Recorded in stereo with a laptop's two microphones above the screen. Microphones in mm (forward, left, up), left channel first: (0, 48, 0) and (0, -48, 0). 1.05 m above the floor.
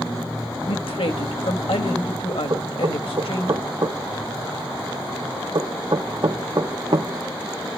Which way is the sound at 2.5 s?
50° right (ahead or behind).